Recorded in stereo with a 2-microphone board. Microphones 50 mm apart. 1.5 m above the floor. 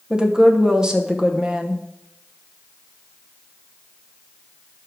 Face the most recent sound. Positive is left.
turn(degrees=-15)  # may be behind; listen again after turning